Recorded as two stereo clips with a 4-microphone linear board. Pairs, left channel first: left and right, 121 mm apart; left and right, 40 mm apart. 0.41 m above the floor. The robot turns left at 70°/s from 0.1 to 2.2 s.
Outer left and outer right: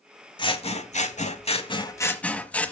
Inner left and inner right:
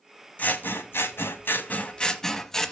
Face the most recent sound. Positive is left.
turn(degrees=10)